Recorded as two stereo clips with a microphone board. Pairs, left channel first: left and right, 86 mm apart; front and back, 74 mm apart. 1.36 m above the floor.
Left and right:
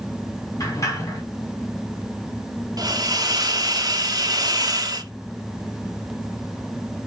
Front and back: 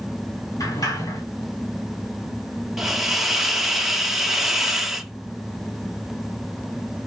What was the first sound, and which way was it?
A sliding door, 40° left.